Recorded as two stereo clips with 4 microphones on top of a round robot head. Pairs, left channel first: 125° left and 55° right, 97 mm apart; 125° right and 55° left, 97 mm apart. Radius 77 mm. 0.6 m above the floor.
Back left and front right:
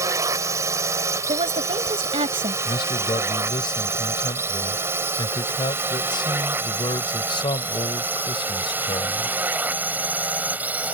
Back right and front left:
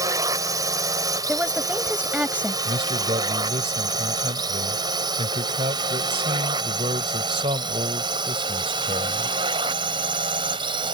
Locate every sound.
0.0 s a drone: 5° left; by 10.9 s 20° left
1.3 s a woman speaking: 20° right
2.6 s a man speaking: 85° left